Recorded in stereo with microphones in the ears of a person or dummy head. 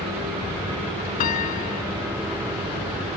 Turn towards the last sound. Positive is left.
turn(degrees=50)  # may be behind; listen again after turning